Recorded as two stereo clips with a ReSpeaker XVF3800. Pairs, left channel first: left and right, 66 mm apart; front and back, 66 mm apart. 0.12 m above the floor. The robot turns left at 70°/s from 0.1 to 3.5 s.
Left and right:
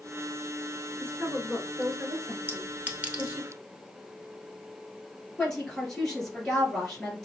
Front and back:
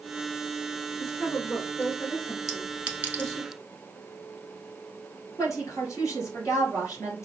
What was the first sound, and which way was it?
A woman speaking, 80° left.